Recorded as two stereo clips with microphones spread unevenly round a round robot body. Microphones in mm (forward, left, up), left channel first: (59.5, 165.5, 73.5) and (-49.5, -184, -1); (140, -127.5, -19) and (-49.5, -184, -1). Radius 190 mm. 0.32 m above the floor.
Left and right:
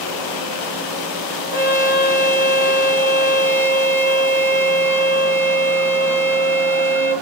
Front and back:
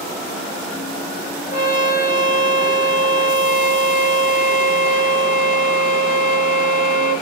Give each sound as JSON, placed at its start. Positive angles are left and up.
{"t": 1.5, "sound": "a trumpet", "azimuth_deg": -15, "distance_m": 6.0}